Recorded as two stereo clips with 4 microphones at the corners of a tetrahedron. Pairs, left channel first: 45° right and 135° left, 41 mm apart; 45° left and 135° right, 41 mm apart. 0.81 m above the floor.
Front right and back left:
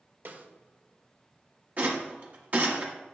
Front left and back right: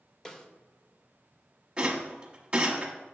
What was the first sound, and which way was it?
A snare drum, 115° left.